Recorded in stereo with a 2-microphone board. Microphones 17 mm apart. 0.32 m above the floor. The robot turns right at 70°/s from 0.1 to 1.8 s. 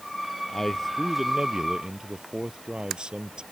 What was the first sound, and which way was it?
A man speaking, 150° left.